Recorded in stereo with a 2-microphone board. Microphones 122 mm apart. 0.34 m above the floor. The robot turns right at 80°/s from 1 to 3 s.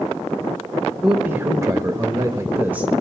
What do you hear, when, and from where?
1.0 s a man speaking: 5° right (ahead or behind), 0.9 m; by 2.9 s 10° right (ahead or behind), 0.9 m